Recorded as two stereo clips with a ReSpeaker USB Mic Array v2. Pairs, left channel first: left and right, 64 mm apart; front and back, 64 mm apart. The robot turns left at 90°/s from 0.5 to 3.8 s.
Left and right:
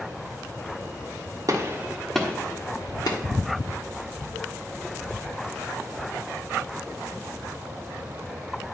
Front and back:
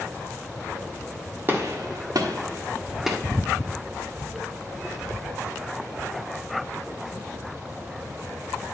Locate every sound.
1.5 s a gunshot: 125° right, 1.4 m; by 3.2 s 85° left, 1.4 m